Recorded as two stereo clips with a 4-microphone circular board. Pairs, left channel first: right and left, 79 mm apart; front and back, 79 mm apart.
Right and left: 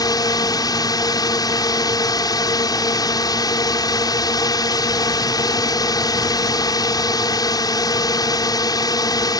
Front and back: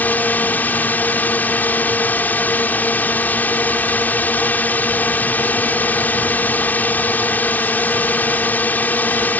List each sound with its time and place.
0.0 s a drone: 65° right